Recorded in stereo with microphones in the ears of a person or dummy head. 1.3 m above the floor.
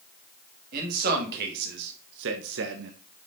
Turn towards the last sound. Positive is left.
turn(degrees=-65)  # may be behind; listen again after turning